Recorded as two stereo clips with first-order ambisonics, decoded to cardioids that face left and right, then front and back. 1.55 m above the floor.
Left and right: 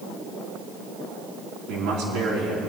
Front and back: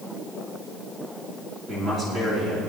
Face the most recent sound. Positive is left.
turn(degrees=-120)